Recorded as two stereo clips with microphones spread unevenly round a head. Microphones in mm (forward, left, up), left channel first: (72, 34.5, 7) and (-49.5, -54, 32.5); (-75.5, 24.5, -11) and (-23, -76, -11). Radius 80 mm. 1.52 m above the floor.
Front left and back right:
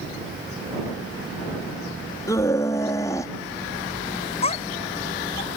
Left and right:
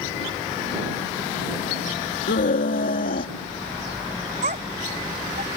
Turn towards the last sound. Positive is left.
turn(degrees=-20)